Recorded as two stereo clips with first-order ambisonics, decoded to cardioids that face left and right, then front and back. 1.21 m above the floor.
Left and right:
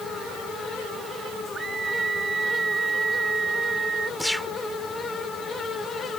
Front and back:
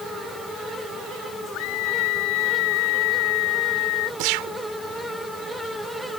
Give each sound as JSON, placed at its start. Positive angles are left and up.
{"t": 1.5, "sound": "a scream", "azimuth_deg": -15}
{"t": 4.2, "sound": "a gunshot", "azimuth_deg": 180}